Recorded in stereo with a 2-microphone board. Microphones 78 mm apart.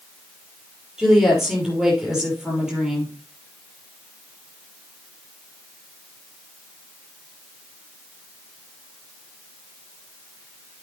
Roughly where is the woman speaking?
Centre.